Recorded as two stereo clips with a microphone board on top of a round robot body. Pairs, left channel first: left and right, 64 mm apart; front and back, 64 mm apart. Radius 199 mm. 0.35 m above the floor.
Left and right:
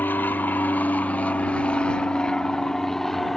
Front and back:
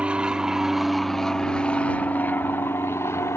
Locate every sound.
0.0 s an aircraft: 120° left; by 3.4 s 5° left